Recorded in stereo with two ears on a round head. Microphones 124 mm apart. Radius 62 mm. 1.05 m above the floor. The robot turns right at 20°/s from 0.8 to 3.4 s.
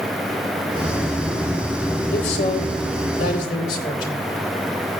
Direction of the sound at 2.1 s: 80° left.